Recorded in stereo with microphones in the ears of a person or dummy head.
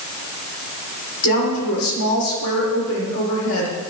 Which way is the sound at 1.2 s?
85° left.